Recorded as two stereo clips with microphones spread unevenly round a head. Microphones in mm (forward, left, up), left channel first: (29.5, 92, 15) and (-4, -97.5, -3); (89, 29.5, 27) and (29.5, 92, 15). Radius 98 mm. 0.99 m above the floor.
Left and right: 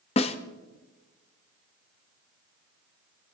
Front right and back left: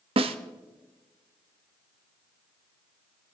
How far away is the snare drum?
About 0.7 m.